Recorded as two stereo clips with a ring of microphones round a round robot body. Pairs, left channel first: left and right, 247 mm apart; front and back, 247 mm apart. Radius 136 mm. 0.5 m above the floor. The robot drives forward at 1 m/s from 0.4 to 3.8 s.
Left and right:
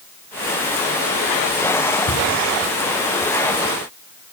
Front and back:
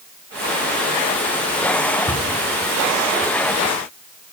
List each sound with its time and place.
2.1 s a cupboard door: 65° left, 7 m; by 2.3 s 70° left, 7 m